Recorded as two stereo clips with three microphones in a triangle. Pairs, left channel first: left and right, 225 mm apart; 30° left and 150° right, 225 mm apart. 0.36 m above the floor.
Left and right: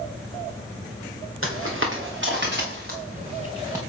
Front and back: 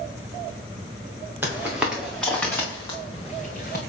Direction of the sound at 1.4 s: 70° right.